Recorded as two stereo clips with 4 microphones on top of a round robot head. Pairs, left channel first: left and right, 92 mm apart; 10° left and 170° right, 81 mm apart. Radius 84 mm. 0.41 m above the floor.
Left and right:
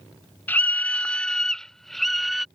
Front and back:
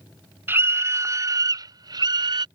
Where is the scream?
145° left; by 2.5 s straight behind.